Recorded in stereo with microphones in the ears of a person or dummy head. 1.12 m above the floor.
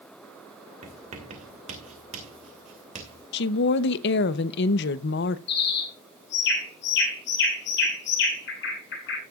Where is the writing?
40° right (ahead or behind), 2.5 m.